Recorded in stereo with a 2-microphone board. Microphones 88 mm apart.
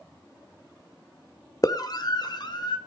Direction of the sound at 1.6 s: 45° left (ahead or behind).